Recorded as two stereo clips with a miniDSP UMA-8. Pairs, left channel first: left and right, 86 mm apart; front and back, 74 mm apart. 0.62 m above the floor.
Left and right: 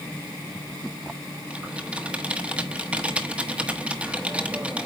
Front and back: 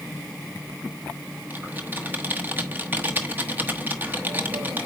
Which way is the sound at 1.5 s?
145° right.